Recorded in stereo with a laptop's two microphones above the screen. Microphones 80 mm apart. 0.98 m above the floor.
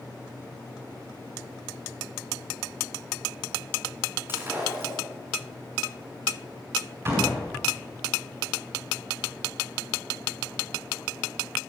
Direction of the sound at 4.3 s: 25° right (ahead or behind).